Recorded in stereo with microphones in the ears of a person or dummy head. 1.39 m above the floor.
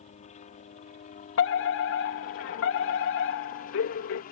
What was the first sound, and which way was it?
A helicopter, 35° left (ahead or behind).